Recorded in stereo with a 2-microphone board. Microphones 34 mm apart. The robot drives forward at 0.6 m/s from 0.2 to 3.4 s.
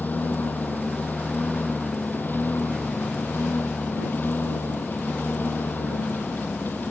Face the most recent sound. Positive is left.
turn(degrees=75)  # may be behind; listen again after turning